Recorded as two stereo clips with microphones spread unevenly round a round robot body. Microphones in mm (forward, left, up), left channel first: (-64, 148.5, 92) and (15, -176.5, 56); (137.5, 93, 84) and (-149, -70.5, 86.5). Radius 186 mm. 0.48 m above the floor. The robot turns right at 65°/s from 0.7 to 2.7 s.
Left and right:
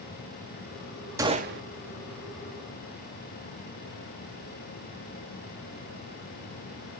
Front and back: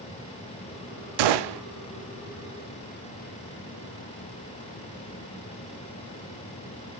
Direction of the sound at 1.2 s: 155° right.